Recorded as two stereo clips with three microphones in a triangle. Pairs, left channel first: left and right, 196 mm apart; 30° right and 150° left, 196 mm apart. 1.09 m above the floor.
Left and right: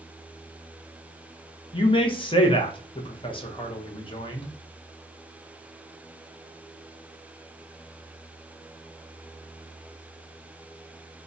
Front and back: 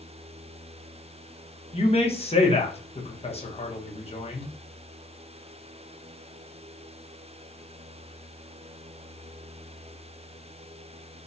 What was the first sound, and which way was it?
A man speaking, 25° left.